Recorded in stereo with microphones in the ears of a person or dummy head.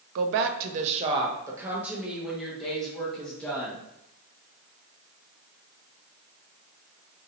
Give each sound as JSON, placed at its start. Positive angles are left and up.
{"t": 0.1, "sound": "a woman speaking", "side_deg": -75, "distance_m": 0.5}